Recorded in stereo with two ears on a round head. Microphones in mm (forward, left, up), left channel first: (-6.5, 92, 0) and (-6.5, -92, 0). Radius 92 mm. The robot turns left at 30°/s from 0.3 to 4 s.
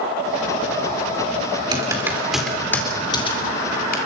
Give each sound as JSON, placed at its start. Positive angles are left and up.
{"t": 1.7, "sound": "typing on a keyboard", "side_deg": -20, "distance_m": 4.0}